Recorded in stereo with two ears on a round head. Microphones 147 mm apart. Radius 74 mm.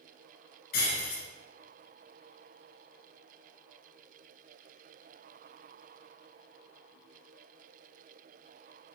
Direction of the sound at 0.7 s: 65° left (ahead or behind).